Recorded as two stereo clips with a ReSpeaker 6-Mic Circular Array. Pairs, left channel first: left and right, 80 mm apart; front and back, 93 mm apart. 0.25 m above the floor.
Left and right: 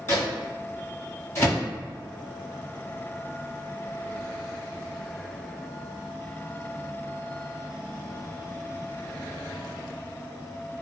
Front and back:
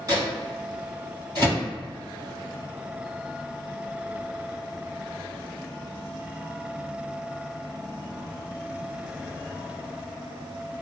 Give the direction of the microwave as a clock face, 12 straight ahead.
7 o'clock.